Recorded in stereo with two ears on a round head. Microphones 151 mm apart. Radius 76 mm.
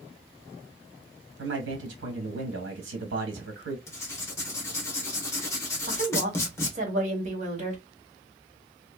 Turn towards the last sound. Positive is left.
turn(degrees=-45)  # may be behind; listen again after turning